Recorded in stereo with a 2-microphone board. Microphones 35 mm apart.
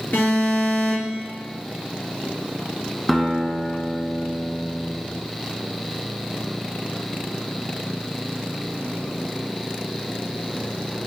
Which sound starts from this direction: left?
An alarm, at 0.1 s.